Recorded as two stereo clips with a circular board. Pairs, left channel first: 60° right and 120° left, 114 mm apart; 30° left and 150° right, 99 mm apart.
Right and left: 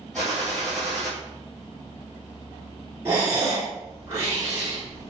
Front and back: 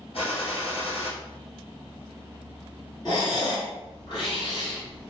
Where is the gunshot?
25° left, 1.8 m.